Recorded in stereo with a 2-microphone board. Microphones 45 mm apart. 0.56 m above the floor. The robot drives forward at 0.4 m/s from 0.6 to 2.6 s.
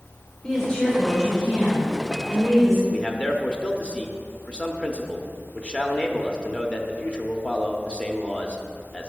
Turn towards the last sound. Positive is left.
turn(degrees=20)  # may be behind; listen again after turning